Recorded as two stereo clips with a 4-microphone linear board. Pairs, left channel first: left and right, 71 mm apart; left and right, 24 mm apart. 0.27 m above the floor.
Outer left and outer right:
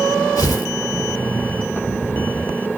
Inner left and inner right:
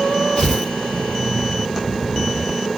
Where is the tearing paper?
55° left (ahead or behind), 5 m.